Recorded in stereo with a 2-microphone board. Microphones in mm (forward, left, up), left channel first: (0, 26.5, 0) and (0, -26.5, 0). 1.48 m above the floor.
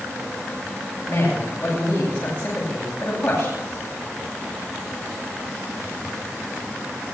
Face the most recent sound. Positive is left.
turn(degrees=25)  # may be behind; listen again after turning